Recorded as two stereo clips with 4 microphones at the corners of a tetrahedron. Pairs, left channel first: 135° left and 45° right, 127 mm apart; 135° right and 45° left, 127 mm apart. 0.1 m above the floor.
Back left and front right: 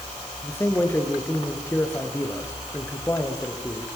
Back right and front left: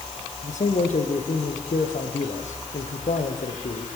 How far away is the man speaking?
About 5 m.